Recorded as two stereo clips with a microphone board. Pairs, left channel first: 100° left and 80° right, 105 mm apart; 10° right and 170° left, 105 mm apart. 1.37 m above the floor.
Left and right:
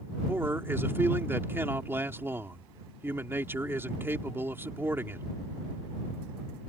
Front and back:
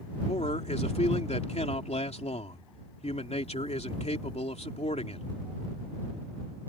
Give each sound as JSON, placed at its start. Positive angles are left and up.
{"t": 0.3, "sound": "a man speaking", "azimuth_deg": -10}